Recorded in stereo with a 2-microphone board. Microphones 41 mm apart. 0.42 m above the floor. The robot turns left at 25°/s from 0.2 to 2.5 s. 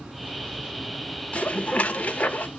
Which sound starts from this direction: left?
Dishes clattering, at 1.3 s.